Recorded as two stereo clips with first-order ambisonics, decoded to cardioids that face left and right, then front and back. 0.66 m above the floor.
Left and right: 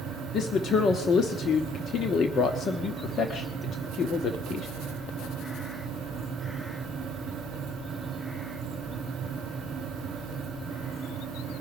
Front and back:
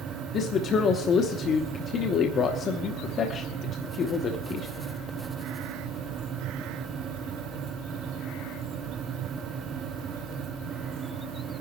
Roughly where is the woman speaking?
Ahead left.